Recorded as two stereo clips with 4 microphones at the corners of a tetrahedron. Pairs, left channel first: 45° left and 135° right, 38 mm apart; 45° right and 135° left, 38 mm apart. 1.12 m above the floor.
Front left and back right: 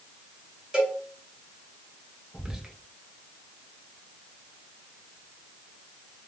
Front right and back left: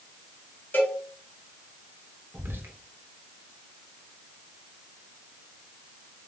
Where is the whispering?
150° left, 0.5 m.